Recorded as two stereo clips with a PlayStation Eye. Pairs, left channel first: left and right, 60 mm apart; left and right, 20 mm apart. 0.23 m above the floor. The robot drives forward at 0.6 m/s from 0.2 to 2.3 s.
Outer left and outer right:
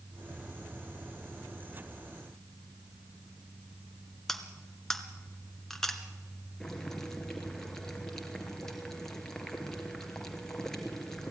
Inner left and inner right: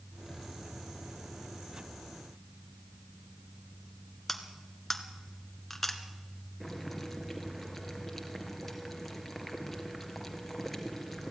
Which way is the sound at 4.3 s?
5° left (ahead or behind).